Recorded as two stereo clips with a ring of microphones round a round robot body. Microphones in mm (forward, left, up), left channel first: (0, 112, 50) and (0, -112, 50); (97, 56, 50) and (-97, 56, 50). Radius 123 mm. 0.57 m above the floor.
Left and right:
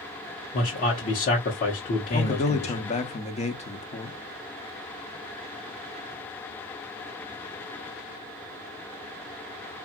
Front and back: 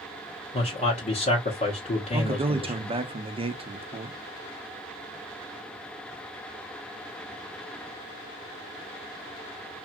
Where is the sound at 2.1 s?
135° left, 0.8 m.